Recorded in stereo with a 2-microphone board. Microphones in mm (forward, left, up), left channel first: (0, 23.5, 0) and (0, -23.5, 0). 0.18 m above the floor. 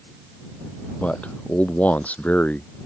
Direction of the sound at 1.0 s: 30° left (ahead or behind).